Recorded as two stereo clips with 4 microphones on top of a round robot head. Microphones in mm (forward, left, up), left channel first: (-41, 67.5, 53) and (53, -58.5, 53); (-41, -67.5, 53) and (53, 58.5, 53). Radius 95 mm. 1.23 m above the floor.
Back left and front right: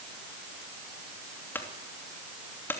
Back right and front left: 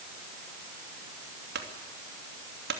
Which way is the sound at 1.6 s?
50° left.